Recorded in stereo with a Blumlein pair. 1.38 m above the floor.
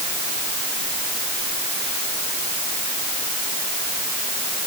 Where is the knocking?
I don't hear knocking.